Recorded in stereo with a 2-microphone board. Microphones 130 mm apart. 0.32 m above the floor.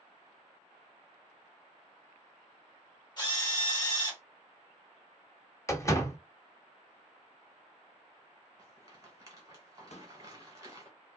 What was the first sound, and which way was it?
A drill, 35° left (ahead or behind).